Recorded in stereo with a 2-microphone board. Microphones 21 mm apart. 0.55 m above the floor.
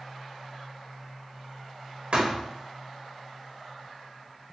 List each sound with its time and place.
2.1 s a thud: 70° right (ahead or behind), 1.0 m